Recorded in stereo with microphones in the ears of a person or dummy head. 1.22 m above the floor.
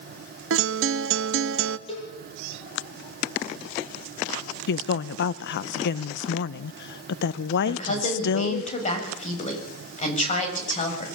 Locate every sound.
0.5 s a guitar: 65° right (ahead or behind), 1.0 m
1.9 s a cowbell: 30° left (ahead or behind), 9 m
4.7 s a woman speaking: 60° left (ahead or behind), 0.5 m
7.7 s a woman speaking: 40° left (ahead or behind), 6.5 m